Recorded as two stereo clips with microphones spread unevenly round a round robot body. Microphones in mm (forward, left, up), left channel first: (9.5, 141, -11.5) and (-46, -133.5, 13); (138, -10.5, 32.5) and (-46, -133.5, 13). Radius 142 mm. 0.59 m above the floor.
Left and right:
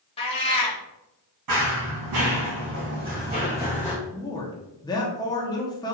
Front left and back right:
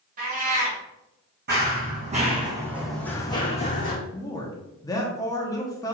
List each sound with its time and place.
0.2 s a cat meowing: 150° left, 0.9 m
1.5 s running footsteps: 100° right, 2 m; by 4.0 s 10° right, 1.8 m
4.1 s a man speaking: 95° left, 0.7 m